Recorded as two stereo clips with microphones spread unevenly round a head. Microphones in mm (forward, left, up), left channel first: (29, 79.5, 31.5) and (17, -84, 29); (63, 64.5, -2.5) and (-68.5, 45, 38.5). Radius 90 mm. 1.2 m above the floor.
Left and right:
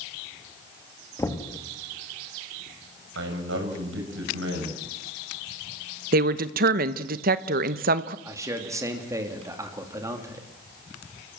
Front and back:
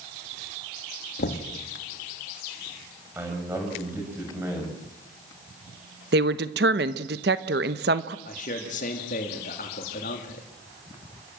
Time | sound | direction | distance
1.2 | knocking | 10° left | 1.8 m
3.1 | a man speaking | 95° right | 6 m
6.1 | a woman speaking | 135° right | 1.0 m
8.2 | a man speaking | 20° right | 2.5 m